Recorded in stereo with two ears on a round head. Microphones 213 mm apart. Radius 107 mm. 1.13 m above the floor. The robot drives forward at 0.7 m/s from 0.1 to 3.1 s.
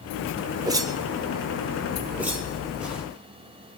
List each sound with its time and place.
0.7 s a whoosh: 15° right (ahead or behind), 0.6 m; by 3.0 s 5° right (ahead or behind), 2 m